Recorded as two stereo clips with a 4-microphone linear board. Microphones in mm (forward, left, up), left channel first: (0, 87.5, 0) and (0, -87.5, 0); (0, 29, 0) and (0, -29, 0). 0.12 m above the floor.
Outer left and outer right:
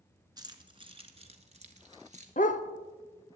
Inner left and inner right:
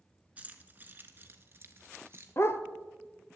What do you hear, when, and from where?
0.4 s keys jangling: 25° right (ahead or behind), 1.1 m; by 2.3 s 45° right (ahead or behind), 1.4 m
2.4 s a dog barking: 50° left (ahead or behind), 0.7 m